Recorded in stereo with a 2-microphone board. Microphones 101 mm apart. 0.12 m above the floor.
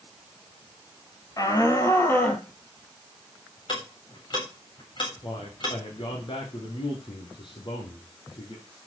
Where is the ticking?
50° left (ahead or behind), 7 m.